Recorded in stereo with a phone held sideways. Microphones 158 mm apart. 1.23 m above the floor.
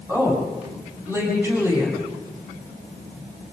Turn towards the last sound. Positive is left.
turn(degrees=-15)  # may be behind; listen again after turning